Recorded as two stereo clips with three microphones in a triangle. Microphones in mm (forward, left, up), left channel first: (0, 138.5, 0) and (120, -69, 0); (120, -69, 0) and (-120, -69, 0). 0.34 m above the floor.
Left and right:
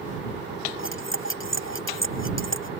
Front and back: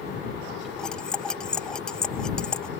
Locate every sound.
0.8 s cutlery clinking: 85° left